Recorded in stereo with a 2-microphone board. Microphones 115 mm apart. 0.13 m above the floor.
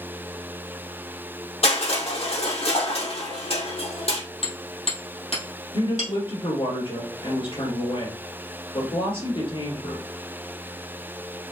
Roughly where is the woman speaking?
Left.